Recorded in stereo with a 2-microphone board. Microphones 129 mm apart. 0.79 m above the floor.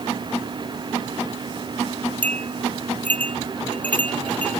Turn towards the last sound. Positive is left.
turn(degrees=10)  # may be behind; listen again after turning